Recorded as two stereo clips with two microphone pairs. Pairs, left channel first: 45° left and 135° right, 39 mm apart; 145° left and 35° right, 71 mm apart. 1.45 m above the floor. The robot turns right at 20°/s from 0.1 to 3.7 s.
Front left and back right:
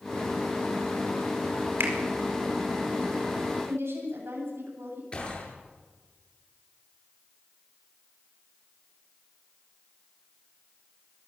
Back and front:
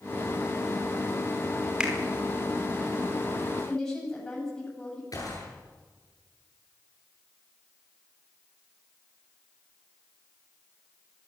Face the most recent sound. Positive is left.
turn(degrees=110)